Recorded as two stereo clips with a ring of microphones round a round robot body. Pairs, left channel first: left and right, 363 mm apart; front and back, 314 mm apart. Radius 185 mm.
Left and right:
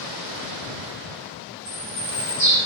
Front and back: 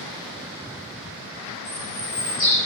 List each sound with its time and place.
1.6 s a bird: 50° right, 1.7 m